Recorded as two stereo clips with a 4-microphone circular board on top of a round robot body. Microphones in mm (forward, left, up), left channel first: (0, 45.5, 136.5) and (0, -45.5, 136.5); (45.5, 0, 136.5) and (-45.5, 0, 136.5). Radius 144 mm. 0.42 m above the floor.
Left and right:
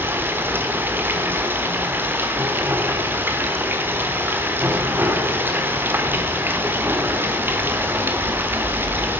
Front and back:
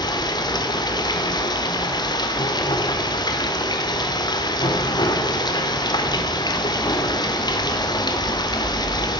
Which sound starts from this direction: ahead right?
Running water, at 0.0 s.